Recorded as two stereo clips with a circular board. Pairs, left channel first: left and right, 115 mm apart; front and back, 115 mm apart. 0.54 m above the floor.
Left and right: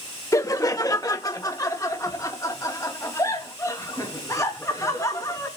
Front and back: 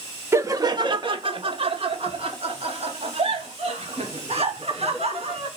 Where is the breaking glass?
I don't hear breaking glass.